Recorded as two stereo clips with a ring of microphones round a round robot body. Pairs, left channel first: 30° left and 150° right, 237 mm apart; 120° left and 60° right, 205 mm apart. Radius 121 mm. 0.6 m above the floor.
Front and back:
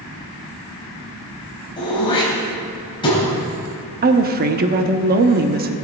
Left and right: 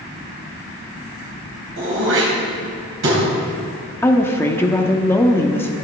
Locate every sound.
1.8 s throat clearing: 40° right, 3.5 m
4.0 s a woman speaking: 165° right, 0.9 m